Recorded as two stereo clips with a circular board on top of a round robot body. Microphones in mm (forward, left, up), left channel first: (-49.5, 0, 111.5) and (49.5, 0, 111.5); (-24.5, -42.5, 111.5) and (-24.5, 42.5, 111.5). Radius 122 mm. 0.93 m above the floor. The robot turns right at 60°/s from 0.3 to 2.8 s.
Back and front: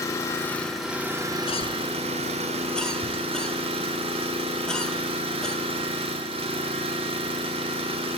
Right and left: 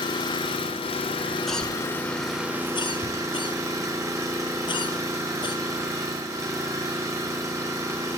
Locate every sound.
0.0 s an engine running: 120° right, 1.3 m; by 8.2 s 30° left, 1.3 m
1.5 s a cough: straight behind, 1.2 m; by 5.6 s 100° right, 1.2 m